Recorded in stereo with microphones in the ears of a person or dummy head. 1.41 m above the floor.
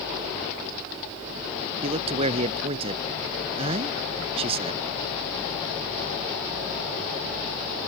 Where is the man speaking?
35° right (ahead or behind).